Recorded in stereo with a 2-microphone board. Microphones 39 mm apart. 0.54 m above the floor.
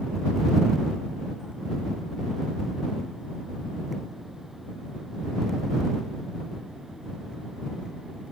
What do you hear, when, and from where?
Only background noise.